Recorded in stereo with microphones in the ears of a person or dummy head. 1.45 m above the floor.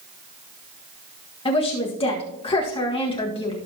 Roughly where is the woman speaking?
Left.